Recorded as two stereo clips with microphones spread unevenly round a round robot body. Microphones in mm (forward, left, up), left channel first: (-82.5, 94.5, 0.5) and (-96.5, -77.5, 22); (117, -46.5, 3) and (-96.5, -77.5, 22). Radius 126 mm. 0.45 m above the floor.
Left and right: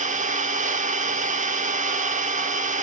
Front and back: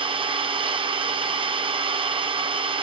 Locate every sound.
0.0 s an engine running: 115° right, 1.3 m